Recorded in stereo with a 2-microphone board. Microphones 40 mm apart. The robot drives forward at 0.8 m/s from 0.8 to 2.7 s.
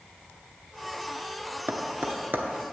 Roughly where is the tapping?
Right.